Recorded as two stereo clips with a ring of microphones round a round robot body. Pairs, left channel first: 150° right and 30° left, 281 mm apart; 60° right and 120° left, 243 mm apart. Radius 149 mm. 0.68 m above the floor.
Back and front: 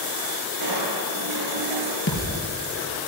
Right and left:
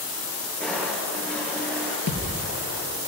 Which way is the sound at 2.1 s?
100° right.